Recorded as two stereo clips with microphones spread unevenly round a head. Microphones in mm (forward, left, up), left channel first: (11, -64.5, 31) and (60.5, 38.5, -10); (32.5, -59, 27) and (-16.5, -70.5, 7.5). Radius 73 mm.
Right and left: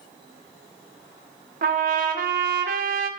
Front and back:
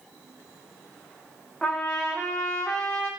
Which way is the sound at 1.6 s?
95° left.